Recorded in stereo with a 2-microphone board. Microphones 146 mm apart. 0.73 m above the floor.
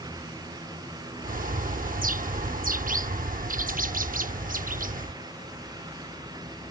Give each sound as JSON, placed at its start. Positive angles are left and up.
{"t": 1.2, "sound": "a bird", "side_deg": -70}